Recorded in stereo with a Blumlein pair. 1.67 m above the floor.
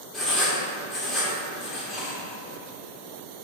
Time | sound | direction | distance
0.1 | writing | 25° left | 1.0 m